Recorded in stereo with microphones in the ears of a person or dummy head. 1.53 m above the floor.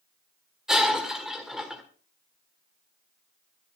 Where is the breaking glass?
5° right (ahead or behind), 1.6 m.